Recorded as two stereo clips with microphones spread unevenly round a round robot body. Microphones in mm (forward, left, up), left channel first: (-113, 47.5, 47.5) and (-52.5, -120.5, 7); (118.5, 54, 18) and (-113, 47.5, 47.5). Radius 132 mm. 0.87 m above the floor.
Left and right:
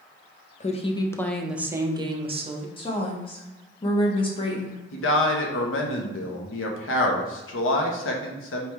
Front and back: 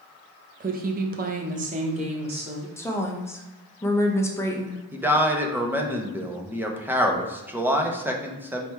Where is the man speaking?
95° left, 0.8 m.